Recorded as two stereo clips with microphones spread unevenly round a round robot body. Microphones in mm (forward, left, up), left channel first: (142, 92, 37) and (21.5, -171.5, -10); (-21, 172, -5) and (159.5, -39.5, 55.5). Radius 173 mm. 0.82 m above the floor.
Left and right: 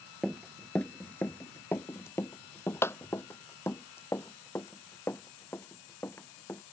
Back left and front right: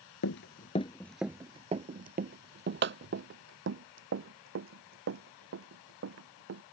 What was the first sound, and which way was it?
Running footsteps, 140° left.